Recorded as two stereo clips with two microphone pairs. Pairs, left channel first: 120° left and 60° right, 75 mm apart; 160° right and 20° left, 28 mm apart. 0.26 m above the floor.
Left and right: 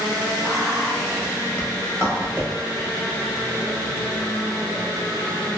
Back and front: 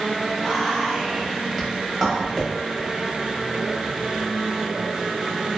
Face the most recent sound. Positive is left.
turn(degrees=100)